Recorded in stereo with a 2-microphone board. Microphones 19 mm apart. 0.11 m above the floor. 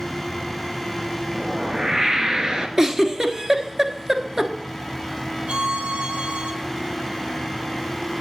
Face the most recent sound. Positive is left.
turn(degrees=-65)  # may be behind; listen again after turning